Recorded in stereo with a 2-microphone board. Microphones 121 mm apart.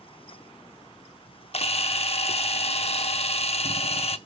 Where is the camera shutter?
55° left (ahead or behind), 0.7 m.